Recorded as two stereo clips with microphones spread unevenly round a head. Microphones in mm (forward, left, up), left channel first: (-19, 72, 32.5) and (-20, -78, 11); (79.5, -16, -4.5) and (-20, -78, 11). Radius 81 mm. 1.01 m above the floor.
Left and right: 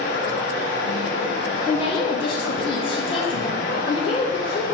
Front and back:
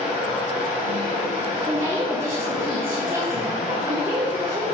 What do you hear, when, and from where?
0.0 s running water: 70° left, 2 m
1.7 s a woman speaking: 140° left, 0.6 m